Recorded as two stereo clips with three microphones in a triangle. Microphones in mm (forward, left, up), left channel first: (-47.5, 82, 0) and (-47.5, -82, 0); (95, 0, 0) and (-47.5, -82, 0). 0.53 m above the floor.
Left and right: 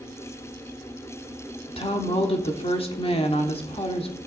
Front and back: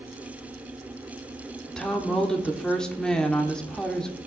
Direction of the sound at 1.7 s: 110° left.